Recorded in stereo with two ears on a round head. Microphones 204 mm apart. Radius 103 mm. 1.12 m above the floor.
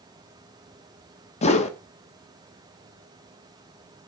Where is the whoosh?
30° left (ahead or behind), 1.3 m.